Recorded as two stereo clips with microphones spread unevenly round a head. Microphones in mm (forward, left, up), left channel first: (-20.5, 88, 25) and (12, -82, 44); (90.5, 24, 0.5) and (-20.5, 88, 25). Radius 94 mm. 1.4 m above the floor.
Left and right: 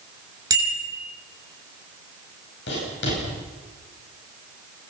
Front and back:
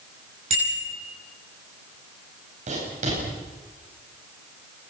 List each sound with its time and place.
0.5 s a bicycle bell: 150° right, 6 m
2.7 s writing: 125° left, 10 m